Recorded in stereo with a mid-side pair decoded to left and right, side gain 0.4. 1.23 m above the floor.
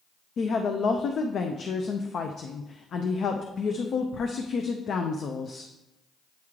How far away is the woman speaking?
About 0.5 m.